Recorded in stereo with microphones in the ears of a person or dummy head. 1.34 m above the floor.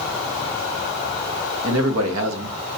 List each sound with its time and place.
1.6 s a man speaking: 80° right, 0.8 m